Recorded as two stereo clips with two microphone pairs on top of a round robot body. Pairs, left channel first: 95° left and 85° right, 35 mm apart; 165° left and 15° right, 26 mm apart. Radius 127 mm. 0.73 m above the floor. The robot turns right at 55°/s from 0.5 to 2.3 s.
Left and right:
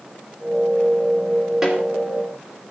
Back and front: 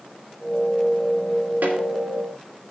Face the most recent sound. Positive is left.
turn(degrees=25)